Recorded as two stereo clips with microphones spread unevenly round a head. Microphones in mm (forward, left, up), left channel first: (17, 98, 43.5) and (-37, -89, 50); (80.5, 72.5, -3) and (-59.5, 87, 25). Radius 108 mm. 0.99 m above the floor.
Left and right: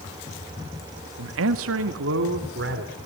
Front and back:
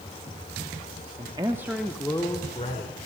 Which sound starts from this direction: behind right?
A man speaking, at 1.2 s.